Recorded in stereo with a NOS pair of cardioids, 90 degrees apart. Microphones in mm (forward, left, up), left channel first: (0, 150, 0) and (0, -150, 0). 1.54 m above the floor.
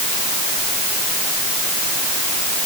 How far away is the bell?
No bell in this recording.